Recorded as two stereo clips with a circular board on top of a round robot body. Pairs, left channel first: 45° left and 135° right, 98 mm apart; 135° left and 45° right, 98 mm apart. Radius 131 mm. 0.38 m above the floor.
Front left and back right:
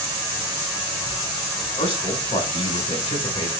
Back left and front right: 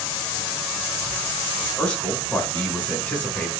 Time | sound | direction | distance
1.8 | a man speaking | 60° left | 4 m